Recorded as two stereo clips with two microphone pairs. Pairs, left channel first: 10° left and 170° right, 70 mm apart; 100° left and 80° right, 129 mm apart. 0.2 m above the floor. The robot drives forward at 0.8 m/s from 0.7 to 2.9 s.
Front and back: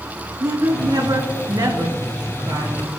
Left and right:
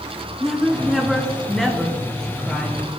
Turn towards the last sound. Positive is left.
turn(degrees=-175)